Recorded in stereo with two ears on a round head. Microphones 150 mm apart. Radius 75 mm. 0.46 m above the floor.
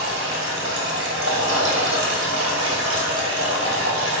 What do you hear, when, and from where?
0.0 s running water: 75° right (ahead or behind), 2.0 m